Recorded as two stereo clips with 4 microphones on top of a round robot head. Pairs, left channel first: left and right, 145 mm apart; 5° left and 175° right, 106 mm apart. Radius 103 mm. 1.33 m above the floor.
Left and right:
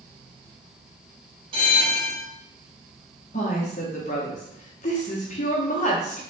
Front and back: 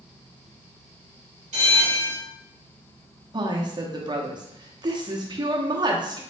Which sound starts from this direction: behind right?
A bell, at 1.5 s.